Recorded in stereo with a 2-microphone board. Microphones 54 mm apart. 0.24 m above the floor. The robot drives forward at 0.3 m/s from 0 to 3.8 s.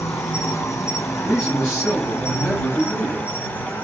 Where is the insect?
80° left, 1.0 m; by 3.8 s 45° left (ahead or behind), 1.4 m.